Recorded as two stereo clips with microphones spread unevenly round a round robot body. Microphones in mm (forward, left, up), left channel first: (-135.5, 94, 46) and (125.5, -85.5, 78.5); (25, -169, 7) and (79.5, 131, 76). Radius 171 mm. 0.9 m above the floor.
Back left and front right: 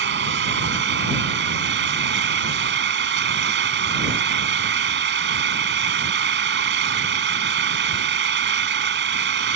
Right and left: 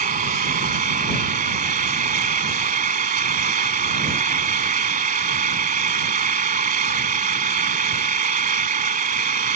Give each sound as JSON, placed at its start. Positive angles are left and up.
{"t": 0.0, "sound": "an engine running", "azimuth_deg": 20}